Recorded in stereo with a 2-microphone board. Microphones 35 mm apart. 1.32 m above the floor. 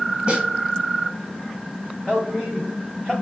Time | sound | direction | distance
0.3 | a snare drum | 25° right (ahead or behind) | 1.3 m
2.1 | a man speaking | 20° left (ahead or behind) | 1.4 m